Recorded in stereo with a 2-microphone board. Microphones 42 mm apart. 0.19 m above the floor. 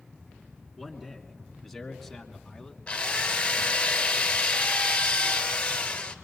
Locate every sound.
0.8 s a man speaking: centre (ahead or behind), 2.5 m; by 2.8 s 15° left (ahead or behind), 1.6 m
2.9 s a drill: 25° left (ahead or behind), 1.7 m